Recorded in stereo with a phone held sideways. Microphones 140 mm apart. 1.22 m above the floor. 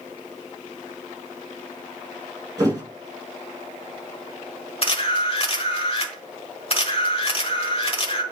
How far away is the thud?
About 6.5 m.